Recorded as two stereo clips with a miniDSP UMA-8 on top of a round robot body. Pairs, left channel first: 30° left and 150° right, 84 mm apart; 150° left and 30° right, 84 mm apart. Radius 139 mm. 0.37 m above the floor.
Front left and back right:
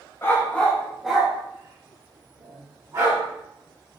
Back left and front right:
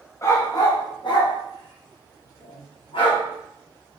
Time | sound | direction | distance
0.2 | a dog barking | 95° left | 0.9 m